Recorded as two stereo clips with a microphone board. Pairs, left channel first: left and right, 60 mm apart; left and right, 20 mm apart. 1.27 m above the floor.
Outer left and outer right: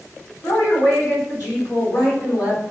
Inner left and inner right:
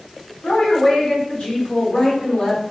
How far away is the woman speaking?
About 3.5 m.